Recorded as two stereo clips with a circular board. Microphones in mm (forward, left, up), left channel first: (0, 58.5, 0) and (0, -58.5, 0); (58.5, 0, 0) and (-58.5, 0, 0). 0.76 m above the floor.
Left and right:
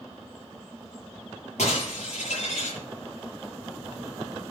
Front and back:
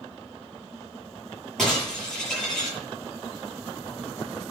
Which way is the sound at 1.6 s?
85° left.